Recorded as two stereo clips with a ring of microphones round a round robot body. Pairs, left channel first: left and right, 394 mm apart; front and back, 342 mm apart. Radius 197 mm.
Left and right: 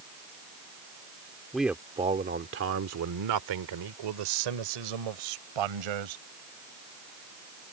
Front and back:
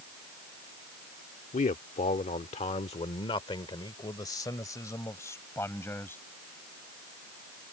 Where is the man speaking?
5° left; by 6.2 s 85° right.